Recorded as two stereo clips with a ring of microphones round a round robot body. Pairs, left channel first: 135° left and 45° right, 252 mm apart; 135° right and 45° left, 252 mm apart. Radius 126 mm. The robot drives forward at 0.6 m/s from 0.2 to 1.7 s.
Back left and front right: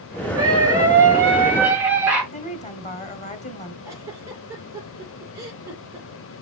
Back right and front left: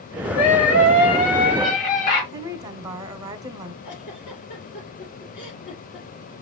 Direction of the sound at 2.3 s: 105° left.